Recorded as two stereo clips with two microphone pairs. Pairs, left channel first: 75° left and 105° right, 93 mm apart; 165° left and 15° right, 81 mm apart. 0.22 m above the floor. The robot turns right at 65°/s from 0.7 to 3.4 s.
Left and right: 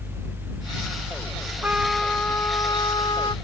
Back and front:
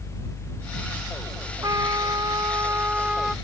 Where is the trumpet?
40° right; by 3.4 s 75° left.